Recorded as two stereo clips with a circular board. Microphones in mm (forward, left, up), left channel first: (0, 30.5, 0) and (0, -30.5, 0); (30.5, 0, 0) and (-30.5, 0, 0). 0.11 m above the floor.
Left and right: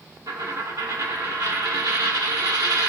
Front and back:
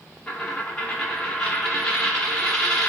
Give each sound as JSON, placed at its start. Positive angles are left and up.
{"t": 0.3, "sound": "a dropped coin", "azimuth_deg": -80, "distance_m": 0.9}